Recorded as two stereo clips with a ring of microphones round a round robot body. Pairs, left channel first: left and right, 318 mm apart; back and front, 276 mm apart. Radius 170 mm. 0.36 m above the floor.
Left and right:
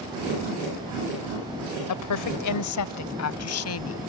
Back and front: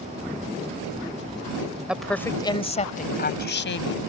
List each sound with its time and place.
1.9 s a woman speaking: 85° left; by 4.1 s 135° left